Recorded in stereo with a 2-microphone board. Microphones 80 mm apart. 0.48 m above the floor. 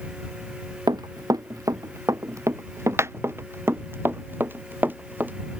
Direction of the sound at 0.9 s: 55° right (ahead or behind).